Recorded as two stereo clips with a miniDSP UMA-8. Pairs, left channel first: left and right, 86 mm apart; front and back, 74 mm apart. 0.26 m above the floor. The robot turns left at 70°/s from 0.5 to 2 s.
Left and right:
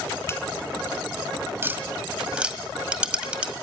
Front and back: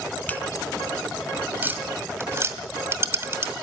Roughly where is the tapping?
Behind right.